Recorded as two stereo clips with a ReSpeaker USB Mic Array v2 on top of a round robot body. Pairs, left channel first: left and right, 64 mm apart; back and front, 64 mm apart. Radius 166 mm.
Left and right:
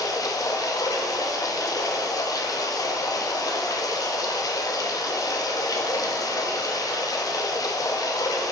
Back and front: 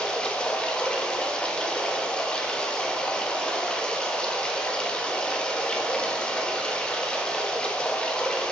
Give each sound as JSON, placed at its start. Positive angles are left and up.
{"t": 0.0, "sound": "running water", "azimuth_deg": 110, "distance_m": 0.9}